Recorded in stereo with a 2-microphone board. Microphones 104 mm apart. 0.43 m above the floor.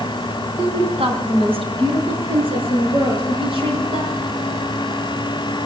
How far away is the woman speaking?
About 2.5 m.